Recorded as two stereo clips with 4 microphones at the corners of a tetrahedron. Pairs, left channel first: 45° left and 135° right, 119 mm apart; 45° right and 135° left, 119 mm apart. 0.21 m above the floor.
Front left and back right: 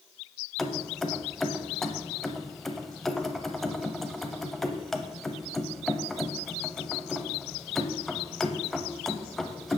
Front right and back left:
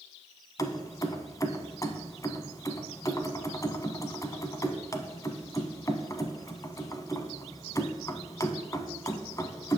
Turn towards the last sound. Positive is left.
turn(degrees=-40)